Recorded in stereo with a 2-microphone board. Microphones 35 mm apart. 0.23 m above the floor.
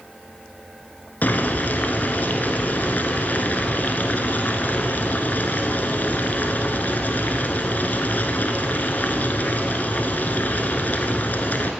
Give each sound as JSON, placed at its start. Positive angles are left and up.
{"t": 1.2, "sound": "boiling", "side_deg": 55, "distance_m": 1.2}